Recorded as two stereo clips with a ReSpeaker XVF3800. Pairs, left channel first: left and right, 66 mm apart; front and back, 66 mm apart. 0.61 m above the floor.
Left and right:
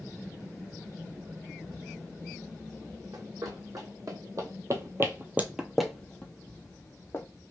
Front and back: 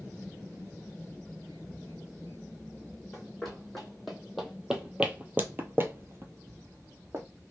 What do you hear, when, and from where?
3.1 s running footsteps: 85° right, 1.7 m; by 7.2 s 135° left, 1.2 m